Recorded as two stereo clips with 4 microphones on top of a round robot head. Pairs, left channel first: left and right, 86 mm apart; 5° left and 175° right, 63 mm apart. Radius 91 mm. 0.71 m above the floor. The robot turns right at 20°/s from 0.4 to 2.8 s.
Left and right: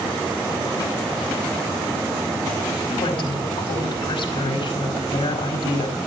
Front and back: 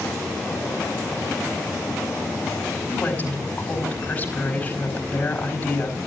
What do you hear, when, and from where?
2.9 s a woman speaking: 65° left, 4 m